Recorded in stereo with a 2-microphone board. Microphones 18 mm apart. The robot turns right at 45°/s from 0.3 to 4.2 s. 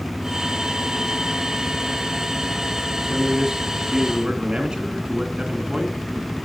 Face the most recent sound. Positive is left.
turn(degrees=-90)